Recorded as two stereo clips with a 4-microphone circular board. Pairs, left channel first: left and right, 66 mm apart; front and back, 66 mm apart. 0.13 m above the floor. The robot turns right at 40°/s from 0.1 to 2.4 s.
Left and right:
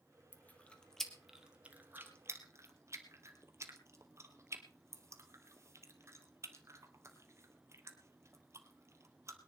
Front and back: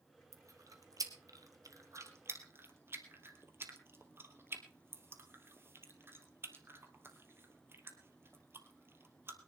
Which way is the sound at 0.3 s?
145° left.